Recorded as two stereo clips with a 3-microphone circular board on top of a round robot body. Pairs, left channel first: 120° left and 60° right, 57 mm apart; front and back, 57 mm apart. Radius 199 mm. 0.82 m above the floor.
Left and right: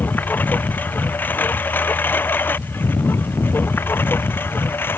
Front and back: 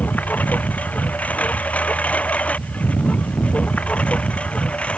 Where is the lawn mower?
65° left; by 5.0 s 70° left.